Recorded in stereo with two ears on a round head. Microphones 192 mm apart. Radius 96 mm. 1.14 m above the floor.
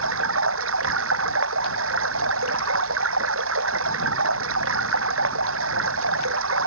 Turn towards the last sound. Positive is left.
turn(degrees=-75)  # may be behind; listen again after turning